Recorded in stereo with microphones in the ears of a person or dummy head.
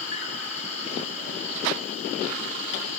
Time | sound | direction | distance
0.0 | an insect | 40° left (ahead or behind) | 3.5 m